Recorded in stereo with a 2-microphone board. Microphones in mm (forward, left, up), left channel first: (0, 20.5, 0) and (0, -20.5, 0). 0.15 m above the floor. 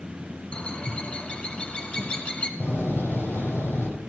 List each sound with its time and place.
0.5 s a bird: 25° left (ahead or behind), 1.8 m
2.6 s a door slam: 55° left (ahead or behind), 4.5 m